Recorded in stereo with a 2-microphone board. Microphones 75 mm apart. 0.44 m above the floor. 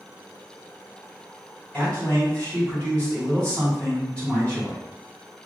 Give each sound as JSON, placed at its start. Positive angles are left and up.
{"t": 1.7, "sound": "a man speaking", "side_deg": 20, "distance_m": 2.0}